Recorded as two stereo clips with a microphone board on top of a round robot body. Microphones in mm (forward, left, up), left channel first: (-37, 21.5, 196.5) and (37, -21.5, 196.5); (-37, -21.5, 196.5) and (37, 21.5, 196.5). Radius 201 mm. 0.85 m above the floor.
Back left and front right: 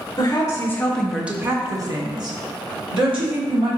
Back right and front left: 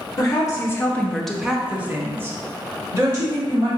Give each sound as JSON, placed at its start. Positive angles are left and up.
{"t": 0.2, "sound": "a woman speaking", "azimuth_deg": 175, "distance_m": 1.0}